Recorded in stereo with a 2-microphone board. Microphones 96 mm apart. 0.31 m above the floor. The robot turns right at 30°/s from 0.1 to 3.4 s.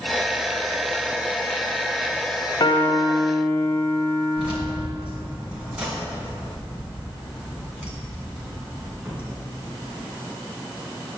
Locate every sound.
2.6 s a piano: 50° left (ahead or behind), 0.8 m; by 4.9 s 35° left (ahead or behind), 0.8 m
4.4 s keys jangling: 15° right (ahead or behind), 2 m